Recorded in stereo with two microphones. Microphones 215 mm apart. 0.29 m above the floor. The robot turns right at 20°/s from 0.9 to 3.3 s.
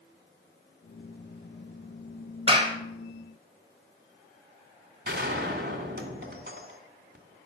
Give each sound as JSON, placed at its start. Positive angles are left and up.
{"t": 2.5, "sound": "a clap", "side_deg": -25, "distance_m": 1.4}
{"t": 5.0, "sound": "a gunshot", "side_deg": -50, "distance_m": 2.5}